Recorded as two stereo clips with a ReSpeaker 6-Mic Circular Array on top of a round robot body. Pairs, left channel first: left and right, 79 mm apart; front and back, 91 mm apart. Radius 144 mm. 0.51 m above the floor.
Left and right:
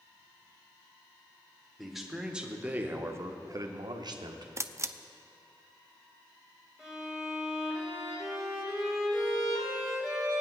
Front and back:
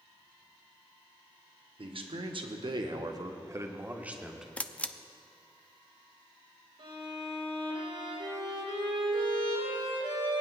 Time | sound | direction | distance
1.8 | a man speaking | straight behind | 1.7 m
4.6 | a camera shutter | 70° right | 0.7 m
6.8 | a violin | straight behind | 3.5 m